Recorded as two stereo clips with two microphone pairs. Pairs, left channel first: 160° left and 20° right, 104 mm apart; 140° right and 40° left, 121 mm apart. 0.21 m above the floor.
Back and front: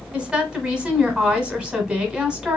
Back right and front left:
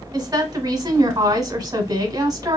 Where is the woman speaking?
50° left, 1.1 m.